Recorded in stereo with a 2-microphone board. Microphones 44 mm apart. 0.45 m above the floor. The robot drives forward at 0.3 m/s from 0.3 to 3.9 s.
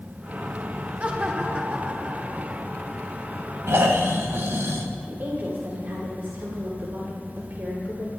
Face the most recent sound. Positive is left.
turn(degrees=-55)  # may be behind; listen again after turning